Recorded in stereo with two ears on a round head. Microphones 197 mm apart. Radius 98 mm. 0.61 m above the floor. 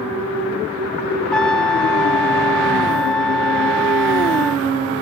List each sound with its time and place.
1.3 s a trumpet: 5° left (ahead or behind)